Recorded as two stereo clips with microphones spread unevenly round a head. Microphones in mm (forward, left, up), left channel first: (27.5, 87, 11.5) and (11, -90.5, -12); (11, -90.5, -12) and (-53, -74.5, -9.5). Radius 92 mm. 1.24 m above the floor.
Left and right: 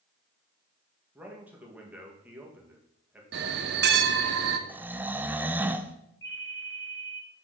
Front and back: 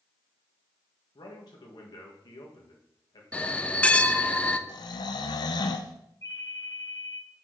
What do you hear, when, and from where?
1.1 s a man speaking: 15° right, 1.7 m
3.3 s a bell: 85° right, 0.7 m
4.7 s snoring: 20° right, 0.5 m
6.2 s a ringtone: 55° left, 2.5 m